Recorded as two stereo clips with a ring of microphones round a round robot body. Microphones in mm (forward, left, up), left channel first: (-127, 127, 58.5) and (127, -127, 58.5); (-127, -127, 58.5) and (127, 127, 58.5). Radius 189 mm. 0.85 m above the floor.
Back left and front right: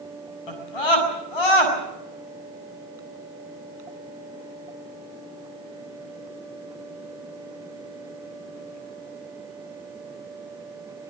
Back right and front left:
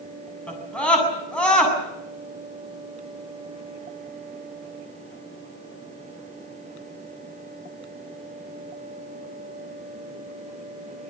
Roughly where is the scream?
Behind left.